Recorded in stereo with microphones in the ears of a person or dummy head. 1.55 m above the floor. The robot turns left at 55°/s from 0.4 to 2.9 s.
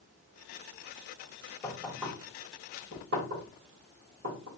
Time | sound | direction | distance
1.6 | knocking | 10° left (ahead or behind) | 2.5 m